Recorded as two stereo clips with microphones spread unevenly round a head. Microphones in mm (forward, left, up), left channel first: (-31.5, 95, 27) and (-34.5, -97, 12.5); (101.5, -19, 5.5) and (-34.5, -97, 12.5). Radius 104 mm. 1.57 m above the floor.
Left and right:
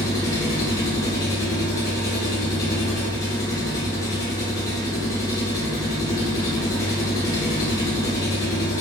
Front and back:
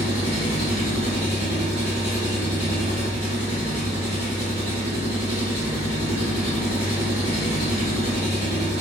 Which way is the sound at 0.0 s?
155° left.